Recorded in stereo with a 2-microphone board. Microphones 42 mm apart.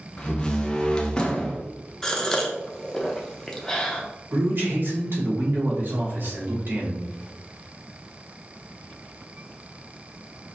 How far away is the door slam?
About 0.7 m.